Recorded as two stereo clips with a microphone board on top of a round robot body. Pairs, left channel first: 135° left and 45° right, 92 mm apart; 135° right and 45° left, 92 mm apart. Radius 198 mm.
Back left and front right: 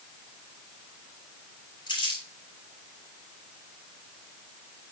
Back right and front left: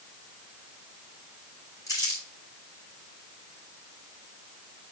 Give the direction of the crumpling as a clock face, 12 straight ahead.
6 o'clock.